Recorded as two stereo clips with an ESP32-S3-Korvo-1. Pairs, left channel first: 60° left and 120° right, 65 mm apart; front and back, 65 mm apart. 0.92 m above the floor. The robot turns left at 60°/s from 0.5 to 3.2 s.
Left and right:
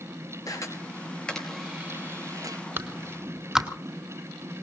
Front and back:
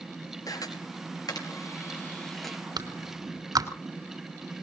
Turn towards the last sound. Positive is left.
turn(degrees=160)